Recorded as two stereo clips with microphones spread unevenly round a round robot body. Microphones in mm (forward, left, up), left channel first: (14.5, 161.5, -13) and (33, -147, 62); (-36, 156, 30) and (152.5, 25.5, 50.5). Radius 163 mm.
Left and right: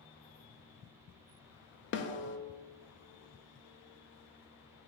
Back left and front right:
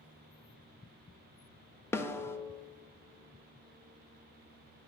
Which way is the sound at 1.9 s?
70° left.